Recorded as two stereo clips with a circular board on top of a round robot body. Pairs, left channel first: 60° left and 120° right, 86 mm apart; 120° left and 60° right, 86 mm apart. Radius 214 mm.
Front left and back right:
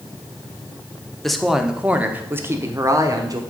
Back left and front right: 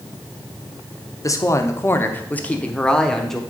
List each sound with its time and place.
1.2 s a woman speaking: 145° left, 1.3 m; by 3.4 s 155° right, 1.7 m